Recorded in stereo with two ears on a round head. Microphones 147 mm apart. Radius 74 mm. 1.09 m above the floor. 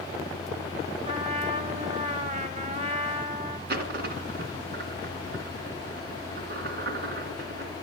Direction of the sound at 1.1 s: 45° right (ahead or behind).